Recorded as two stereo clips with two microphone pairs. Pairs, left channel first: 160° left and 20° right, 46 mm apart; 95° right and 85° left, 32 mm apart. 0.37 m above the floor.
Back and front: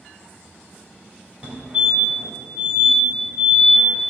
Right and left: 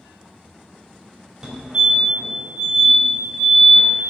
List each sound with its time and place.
1.4 s a fire alarm: 20° left, 2.5 m